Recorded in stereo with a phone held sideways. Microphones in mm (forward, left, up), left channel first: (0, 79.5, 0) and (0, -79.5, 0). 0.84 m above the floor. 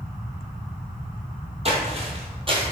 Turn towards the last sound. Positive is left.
turn(degrees=-30)  # may be behind; listen again after turning